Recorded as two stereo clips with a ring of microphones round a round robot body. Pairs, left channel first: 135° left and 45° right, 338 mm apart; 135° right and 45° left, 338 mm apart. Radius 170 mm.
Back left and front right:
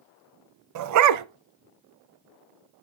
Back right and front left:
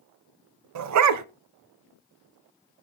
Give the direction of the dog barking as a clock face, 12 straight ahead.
12 o'clock.